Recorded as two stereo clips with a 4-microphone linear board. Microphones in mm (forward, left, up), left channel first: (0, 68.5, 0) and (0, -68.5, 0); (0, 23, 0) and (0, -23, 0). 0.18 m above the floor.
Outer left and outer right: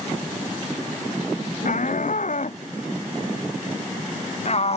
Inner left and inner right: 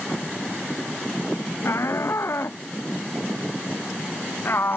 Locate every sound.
1.6 s a shout: 70° left (ahead or behind); by 4.8 s 50° left (ahead or behind)